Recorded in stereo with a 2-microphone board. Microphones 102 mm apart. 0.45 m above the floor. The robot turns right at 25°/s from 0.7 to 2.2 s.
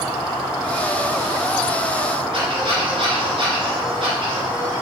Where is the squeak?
60° right (ahead or behind), 3 m.